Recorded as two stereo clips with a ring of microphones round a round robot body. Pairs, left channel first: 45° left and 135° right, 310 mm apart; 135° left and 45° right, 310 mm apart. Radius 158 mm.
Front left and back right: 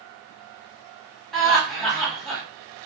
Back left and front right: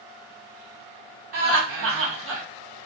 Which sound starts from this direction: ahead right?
Laughter, at 1.3 s.